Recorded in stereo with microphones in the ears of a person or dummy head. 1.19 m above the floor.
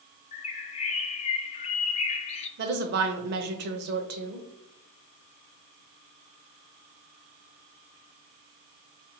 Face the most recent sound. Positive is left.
turn(degrees=-55)  # may be behind; listen again after turning